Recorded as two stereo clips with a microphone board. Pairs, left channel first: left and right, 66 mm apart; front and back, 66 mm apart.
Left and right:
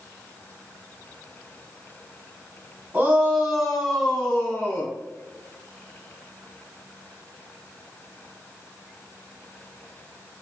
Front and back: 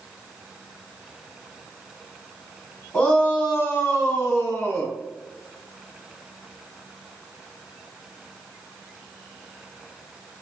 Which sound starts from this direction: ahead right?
A shout, at 2.9 s.